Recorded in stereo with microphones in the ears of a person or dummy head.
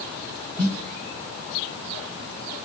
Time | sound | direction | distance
0.6 | a snare drum | centre (ahead or behind) | 1.3 m